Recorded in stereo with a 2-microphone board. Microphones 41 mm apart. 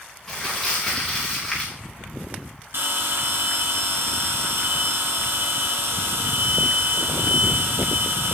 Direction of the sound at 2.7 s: 70° right (ahead or behind).